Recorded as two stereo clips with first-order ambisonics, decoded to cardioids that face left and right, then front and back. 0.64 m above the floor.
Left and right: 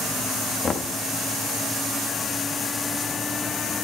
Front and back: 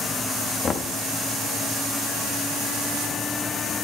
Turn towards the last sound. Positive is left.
turn(degrees=40)